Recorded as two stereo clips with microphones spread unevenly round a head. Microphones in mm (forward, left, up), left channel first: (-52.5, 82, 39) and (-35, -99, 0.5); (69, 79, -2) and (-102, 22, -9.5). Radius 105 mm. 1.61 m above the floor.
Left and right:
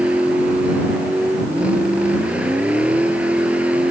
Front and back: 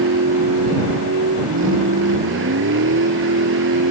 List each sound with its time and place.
0.0 s a vehicle: 170° right